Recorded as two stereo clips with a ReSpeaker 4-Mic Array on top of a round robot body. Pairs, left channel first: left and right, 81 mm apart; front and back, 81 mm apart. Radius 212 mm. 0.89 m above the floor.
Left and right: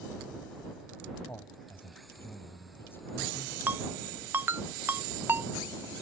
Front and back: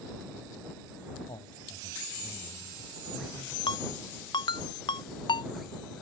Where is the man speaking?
25° left.